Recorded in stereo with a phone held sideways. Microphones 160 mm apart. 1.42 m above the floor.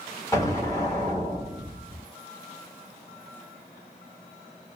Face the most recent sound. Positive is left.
turn(degrees=20)  # may be behind; listen again after turning